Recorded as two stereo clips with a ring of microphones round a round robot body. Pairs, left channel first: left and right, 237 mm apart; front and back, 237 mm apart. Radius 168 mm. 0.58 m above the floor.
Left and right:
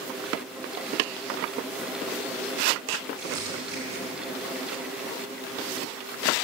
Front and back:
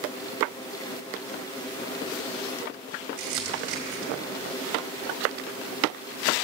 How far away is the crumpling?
About 2.0 m.